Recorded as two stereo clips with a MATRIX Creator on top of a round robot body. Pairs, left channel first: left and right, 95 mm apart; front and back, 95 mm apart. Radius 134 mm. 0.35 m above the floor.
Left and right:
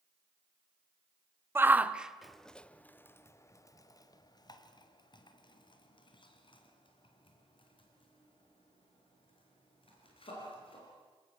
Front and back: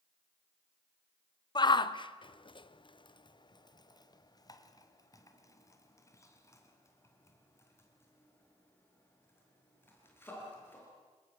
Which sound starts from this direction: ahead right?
A shout, at 1.6 s.